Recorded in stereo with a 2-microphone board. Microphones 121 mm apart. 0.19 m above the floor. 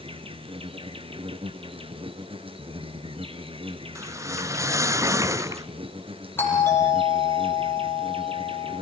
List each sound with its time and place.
0.0 s an insect: 50° right (ahead or behind), 1.2 m
4.0 s a whoosh: 25° right (ahead or behind), 0.6 m
6.4 s a doorbell: 20° left (ahead or behind), 8 m